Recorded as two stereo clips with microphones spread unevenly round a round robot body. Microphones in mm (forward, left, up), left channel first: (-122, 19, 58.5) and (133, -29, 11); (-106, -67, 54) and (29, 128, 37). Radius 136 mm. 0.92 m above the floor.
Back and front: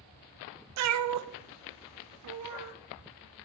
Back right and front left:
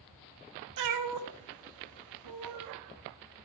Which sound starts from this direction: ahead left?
A cat meowing, at 0.8 s.